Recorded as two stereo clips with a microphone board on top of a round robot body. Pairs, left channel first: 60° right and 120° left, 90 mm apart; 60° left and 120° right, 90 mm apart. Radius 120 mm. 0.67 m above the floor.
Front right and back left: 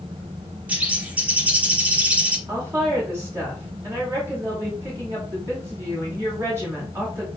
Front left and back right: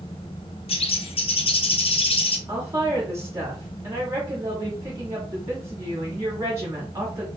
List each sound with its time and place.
0.7 s a bird: 45° left, 0.9 m
2.5 s a woman speaking: straight behind, 2 m